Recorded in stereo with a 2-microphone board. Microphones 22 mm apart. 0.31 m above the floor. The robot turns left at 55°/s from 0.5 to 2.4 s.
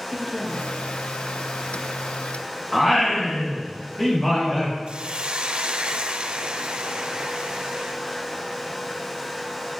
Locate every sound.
0.1 s a woman speaking: 25° left (ahead or behind), 6.5 m; by 0.8 s 45° left (ahead or behind), 6.5 m
2.7 s singing: 25° left (ahead or behind), 6 m
4.9 s a hiss: 55° right (ahead or behind), 1.9 m